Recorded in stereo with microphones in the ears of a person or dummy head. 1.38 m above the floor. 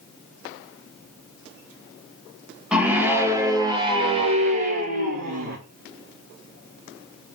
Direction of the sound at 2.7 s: 5° right (ahead or behind).